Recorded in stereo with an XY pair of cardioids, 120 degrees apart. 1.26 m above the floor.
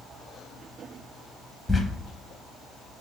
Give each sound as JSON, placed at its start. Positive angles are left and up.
{"t": 1.7, "sound": "a squeak", "azimuth_deg": 10, "distance_m": 0.8}